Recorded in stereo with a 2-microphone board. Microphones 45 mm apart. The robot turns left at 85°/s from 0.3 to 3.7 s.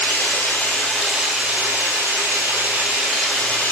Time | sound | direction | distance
0.0 | running water | 60° left | 1.8 m